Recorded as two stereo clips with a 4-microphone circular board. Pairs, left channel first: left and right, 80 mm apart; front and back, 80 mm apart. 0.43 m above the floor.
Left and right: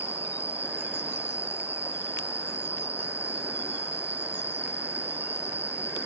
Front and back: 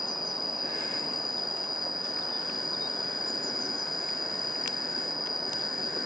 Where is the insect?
30° left.